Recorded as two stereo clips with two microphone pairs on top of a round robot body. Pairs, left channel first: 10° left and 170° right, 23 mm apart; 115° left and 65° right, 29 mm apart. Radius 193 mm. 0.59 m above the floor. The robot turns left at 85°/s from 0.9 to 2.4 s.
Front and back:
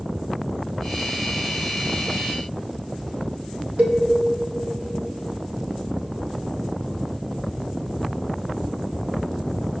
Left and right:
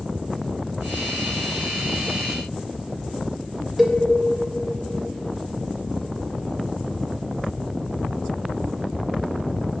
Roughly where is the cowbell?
Behind right.